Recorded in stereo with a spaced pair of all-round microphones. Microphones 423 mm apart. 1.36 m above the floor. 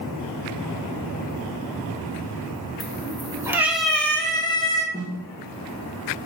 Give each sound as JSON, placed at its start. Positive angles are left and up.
{"t": 2.8, "sound": "a cat meowing", "side_deg": -15, "distance_m": 1.3}
{"t": 4.9, "sound": "a snare drum", "side_deg": 20, "distance_m": 1.9}